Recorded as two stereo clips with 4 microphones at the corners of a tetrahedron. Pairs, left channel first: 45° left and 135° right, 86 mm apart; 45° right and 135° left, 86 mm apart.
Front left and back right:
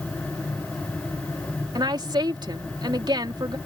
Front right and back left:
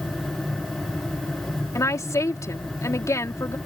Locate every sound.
1.8 s a woman speaking: 100° right